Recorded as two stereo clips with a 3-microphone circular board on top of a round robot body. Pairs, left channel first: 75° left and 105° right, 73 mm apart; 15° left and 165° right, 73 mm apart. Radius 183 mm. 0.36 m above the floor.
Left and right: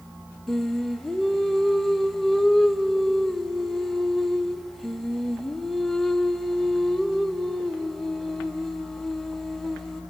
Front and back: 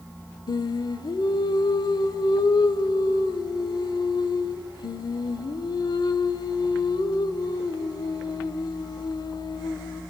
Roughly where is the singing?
Ahead.